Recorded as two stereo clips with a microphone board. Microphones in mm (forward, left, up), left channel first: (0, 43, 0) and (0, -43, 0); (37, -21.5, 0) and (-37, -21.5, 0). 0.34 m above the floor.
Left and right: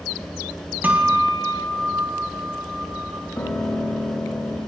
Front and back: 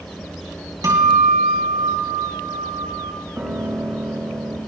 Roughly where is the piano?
Behind left.